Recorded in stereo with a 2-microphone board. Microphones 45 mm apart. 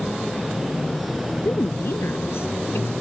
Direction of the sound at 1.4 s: 55° left (ahead or behind).